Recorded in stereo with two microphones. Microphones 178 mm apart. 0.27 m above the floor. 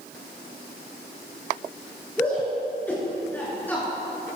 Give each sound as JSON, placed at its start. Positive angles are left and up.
{"t": 2.2, "sound": "a shout", "side_deg": 10, "distance_m": 5.0}